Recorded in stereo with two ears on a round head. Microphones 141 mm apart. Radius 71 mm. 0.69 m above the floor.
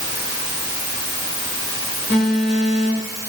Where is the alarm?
15° left (ahead or behind), 1.4 m.